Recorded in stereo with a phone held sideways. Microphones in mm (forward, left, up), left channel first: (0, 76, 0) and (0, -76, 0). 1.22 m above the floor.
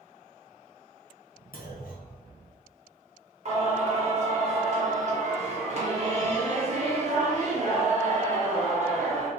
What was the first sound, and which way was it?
A clunk, 70° left (ahead or behind).